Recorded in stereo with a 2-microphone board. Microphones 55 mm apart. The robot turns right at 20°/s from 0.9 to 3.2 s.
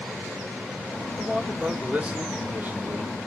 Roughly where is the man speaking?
Behind.